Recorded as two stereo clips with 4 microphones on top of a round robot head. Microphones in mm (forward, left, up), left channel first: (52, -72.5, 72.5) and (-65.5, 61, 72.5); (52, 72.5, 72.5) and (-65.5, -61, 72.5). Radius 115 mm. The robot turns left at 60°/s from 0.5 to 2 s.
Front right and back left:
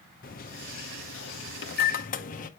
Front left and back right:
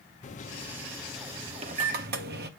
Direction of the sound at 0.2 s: 5° right.